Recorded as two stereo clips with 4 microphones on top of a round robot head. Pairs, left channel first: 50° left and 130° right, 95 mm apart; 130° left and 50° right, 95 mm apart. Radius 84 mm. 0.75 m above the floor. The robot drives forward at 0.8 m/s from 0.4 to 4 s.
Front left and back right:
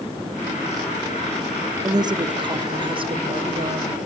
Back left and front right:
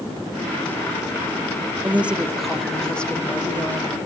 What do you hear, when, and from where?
1.8 s a woman speaking: 110° right, 1.2 m; by 4.0 s 160° right, 2.5 m